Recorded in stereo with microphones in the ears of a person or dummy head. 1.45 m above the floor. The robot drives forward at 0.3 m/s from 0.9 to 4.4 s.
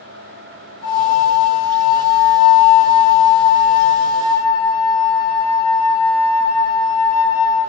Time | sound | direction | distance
0.8 | a flute | 25° left (ahead or behind) | 1.3 m